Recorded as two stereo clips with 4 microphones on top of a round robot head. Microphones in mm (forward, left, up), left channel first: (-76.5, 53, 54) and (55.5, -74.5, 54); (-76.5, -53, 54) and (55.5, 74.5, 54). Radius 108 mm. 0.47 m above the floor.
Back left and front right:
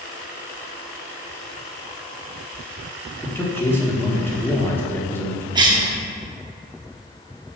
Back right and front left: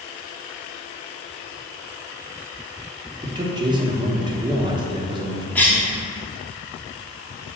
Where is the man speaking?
70° left, 1.3 m.